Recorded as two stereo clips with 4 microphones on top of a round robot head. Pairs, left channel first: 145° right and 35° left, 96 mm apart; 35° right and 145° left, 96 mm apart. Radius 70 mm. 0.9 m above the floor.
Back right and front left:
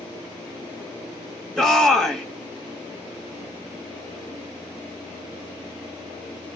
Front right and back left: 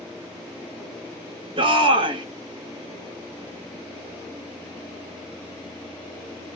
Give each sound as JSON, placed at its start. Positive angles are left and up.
{"t": 1.6, "sound": "a shout", "azimuth_deg": 130, "distance_m": 2.0}